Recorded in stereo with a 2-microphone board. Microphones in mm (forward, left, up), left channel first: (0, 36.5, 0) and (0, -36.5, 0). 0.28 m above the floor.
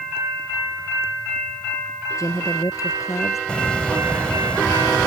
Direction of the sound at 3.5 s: 15° left (ahead or behind).